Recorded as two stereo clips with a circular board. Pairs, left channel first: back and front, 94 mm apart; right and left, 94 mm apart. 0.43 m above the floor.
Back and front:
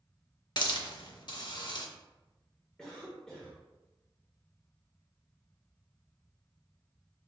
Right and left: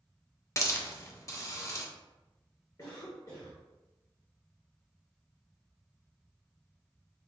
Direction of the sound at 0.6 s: 145° right.